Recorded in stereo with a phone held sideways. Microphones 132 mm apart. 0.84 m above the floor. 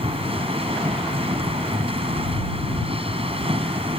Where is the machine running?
45° right (ahead or behind).